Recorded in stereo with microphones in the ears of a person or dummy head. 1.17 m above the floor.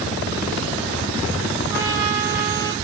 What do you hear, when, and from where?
1.7 s a trumpet: 15° right (ahead or behind), 0.8 m